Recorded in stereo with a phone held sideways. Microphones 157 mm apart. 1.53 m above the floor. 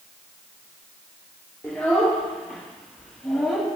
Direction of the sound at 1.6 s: 5° left (ahead or behind).